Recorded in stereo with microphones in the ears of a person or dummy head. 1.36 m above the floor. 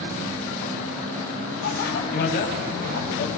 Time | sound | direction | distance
1.6 | a bicycle bell | 60° left (ahead or behind) | 6.5 m